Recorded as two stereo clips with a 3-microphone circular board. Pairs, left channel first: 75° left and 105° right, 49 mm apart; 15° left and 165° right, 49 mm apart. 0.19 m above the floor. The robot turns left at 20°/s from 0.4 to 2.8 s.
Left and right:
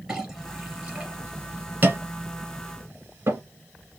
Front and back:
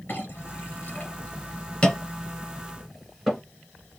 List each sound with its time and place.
0.1 s a clink: 25° right, 2.5 m; by 3.4 s 75° right, 2.5 m